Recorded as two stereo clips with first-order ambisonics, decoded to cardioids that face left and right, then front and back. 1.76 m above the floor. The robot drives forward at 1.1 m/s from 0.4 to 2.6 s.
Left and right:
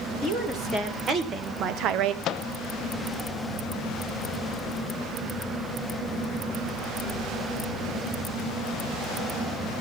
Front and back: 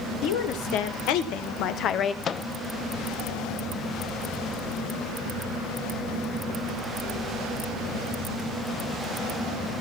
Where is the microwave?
55° left, 0.5 m; by 2.5 s 95° left, 0.5 m.